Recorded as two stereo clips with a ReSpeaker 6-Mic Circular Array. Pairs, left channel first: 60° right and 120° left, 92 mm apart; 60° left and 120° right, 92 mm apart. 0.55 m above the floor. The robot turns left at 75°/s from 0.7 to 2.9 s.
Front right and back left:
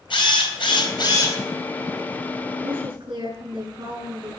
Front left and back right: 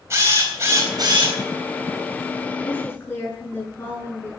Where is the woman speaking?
145° left, 7.5 m; by 4.3 s 125° left, 7.5 m.